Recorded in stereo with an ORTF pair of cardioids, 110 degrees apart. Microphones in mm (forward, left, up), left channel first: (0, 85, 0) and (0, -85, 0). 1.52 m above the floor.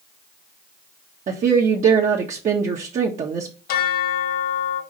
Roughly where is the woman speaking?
Ahead right.